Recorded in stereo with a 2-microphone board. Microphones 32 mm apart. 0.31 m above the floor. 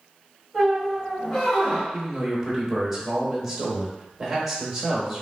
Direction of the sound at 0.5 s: 5° right (ahead or behind).